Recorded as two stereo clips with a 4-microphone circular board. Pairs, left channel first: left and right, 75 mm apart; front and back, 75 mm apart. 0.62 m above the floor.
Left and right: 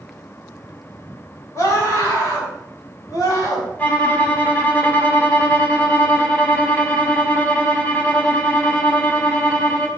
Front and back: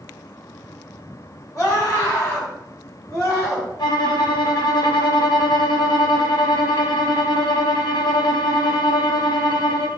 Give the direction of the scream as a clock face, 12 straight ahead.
11 o'clock.